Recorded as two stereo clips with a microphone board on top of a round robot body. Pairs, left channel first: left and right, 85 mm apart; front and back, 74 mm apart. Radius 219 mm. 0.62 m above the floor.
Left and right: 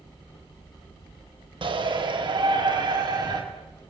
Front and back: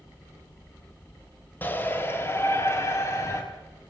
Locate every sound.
1.6 s a shout: 65° right, 3.5 m; by 3.4 s 50° right, 5.5 m